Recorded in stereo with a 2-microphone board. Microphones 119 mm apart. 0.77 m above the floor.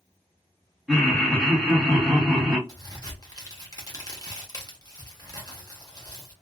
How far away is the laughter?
About 1.6 m.